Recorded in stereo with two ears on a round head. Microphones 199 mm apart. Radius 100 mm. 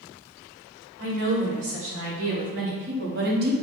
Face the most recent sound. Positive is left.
turn(degrees=-40)  # may be behind; listen again after turning